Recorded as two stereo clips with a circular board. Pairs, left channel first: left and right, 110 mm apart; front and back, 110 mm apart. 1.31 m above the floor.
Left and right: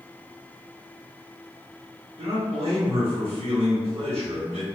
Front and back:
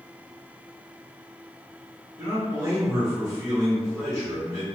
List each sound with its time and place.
2.2 s a man speaking: 120° right, 1.4 m